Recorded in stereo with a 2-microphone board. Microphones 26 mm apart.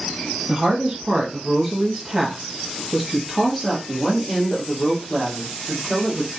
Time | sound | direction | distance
0.5 | a woman speaking | 25° right (ahead or behind) | 1.1 m